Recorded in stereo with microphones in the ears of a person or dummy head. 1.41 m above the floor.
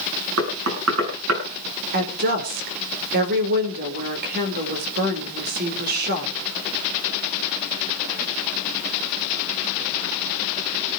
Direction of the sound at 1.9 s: 50° right (ahead or behind).